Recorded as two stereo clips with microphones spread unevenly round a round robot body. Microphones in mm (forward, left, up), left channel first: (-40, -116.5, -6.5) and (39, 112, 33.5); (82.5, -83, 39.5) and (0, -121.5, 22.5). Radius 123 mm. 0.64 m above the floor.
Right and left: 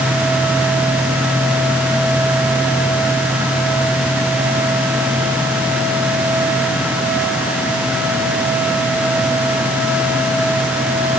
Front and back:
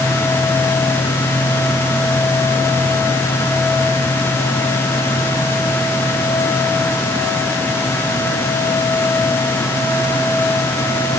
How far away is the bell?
No bell in this recording.